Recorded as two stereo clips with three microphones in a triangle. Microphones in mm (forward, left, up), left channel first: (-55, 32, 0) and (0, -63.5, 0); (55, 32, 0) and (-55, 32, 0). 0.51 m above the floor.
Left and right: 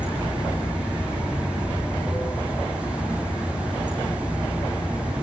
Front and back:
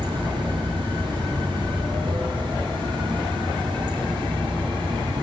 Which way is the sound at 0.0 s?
140° right.